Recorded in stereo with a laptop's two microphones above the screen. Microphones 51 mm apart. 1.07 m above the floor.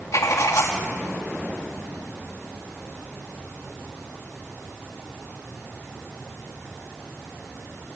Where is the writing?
70° left (ahead or behind), 2.5 m.